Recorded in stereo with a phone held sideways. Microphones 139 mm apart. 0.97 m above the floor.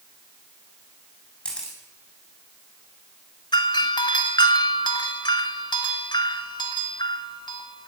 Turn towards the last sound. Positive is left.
turn(degrees=35)  # may be behind; listen again after turning